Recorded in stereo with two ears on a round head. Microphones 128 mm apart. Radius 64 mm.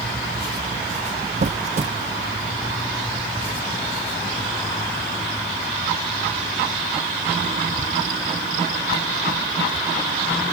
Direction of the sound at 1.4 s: 50° right (ahead or behind).